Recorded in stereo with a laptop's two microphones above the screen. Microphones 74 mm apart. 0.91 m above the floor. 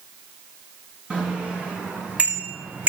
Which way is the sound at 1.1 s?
15° right (ahead or behind).